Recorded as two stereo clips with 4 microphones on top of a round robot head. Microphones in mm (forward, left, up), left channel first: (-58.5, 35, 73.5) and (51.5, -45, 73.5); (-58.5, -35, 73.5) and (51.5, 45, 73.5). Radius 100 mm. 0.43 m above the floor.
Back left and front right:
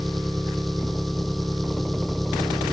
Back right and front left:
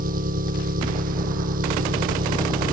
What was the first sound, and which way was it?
An engine running, 55° left.